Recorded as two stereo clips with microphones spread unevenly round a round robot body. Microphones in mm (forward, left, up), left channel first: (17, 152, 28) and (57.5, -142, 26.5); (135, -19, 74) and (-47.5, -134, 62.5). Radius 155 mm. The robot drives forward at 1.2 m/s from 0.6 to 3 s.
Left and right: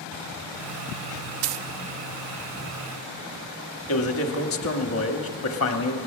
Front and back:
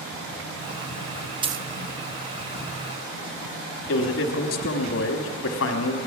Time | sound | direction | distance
1.4 | a dropped coin | 75° right | 0.5 m
3.9 | a man speaking | 55° left | 1.2 m